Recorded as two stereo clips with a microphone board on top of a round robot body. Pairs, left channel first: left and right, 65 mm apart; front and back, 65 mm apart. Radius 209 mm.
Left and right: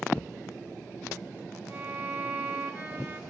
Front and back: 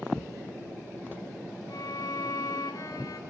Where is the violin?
30° right, 2.5 m.